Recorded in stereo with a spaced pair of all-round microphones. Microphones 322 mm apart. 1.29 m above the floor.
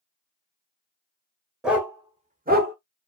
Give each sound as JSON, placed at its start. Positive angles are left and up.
{"t": 1.6, "sound": "a dog barking", "side_deg": 0, "distance_m": 1.3}